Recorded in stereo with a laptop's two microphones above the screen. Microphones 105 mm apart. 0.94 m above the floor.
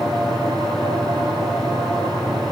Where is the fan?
45° right (ahead or behind), 2.5 m.